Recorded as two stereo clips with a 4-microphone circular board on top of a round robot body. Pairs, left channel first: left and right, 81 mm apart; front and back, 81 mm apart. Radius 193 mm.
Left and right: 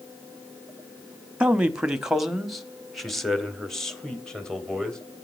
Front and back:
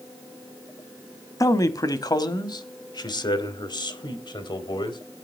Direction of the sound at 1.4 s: 20° right.